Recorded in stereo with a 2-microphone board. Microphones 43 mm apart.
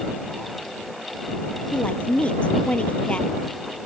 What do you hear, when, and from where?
1.7 s a woman speaking: 30° left (ahead or behind)